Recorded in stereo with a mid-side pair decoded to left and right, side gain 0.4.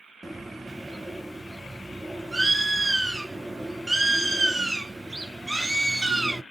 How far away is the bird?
About 0.5 m.